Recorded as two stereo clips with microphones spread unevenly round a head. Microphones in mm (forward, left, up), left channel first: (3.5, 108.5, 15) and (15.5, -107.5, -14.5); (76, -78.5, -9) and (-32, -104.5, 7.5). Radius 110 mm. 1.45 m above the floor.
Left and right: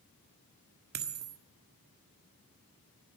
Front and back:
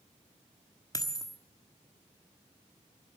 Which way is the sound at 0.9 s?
45° right.